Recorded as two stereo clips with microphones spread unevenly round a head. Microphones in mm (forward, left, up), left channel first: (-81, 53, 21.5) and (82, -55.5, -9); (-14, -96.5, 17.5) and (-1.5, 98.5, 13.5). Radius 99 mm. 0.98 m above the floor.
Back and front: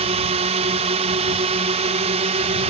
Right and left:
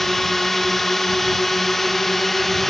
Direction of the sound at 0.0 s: 5° right.